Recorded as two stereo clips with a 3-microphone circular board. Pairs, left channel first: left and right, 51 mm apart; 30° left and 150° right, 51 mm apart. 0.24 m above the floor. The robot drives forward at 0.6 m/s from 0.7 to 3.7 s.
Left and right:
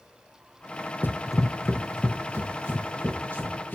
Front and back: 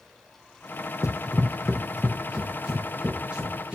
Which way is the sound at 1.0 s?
40° left.